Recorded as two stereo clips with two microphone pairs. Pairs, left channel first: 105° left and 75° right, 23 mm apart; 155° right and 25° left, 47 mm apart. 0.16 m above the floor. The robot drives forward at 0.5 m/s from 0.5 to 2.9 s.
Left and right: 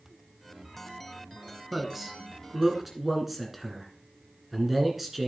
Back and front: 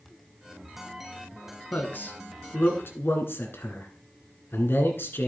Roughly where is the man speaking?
Behind right.